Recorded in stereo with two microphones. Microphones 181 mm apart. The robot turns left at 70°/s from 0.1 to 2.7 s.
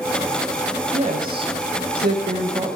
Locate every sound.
0.9 s a woman speaking: 35° right, 4 m; by 2.8 s 160° right, 4 m